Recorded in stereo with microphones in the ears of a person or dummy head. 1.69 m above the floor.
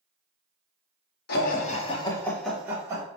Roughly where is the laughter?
Left.